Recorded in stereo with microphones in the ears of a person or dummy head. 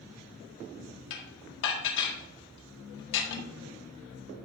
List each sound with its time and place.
1.1 s dishes clattering: 65° left (ahead or behind), 1.8 m